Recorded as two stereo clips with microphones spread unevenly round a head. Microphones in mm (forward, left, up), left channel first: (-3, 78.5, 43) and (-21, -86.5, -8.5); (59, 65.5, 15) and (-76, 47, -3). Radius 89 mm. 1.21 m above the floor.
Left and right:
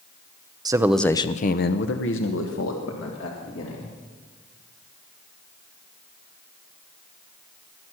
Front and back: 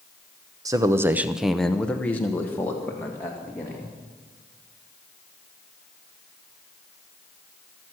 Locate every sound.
0.7 s a man speaking: 125° right, 0.7 m; by 3.9 s 85° left, 2.5 m